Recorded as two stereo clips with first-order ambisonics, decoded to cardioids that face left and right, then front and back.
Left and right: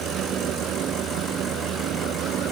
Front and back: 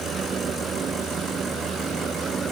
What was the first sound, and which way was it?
Only background noise.